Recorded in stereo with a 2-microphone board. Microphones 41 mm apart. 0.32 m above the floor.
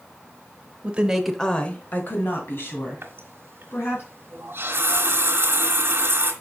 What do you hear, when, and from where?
0.8 s a woman speaking: 30° right (ahead or behind), 1.0 m; by 4.0 s 65° left (ahead or behind), 3.5 m
3.0 s a running tap: 60° right (ahead or behind), 1.6 m